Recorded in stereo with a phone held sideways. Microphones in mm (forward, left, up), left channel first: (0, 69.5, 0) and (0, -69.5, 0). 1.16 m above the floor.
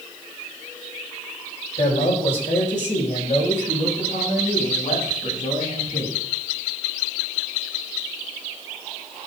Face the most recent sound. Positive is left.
turn(degrees=70)  # may be behind; listen again after turning